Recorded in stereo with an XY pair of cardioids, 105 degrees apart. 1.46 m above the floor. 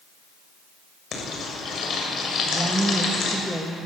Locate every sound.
1.1 s frying: 60° left, 7 m
2.5 s a woman speaking: 10° right, 2 m